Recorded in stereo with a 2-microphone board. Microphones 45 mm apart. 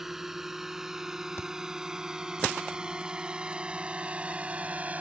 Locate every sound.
0.0 s a drone: 10° right (ahead or behind); by 5.0 s 35° right (ahead or behind)
1.4 s a thud: 65° left (ahead or behind)